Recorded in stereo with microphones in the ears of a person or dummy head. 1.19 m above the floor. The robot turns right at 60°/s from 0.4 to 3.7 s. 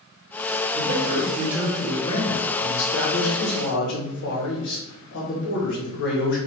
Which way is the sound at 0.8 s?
55° right.